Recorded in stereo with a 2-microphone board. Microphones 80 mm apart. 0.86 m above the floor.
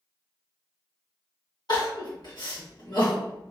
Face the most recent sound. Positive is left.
turn(degrees=65)  # may be behind; listen again after turning